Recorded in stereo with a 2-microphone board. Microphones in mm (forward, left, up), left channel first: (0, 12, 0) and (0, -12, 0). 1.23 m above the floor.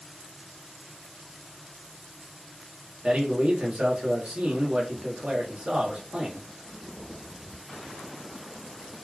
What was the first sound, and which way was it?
A man speaking, 45° right (ahead or behind).